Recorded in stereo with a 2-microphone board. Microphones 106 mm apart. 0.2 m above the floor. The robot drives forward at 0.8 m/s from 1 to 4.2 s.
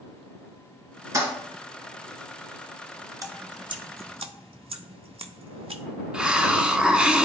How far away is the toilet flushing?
About 2 m.